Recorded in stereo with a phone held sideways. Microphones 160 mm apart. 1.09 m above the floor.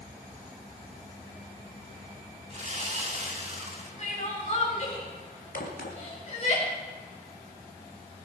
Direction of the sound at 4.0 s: 45° left (ahead or behind).